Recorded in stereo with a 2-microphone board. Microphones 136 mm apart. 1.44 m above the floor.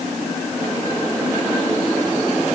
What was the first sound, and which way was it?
Only background noise.